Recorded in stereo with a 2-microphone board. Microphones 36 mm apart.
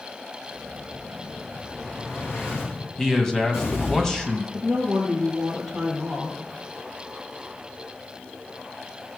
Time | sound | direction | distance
0.5 | an explosion | 80° left | 6.5 m
3.0 | a man speaking | 10° left (ahead or behind) | 1.7 m
4.5 | a woman speaking | 10° right (ahead or behind) | 5 m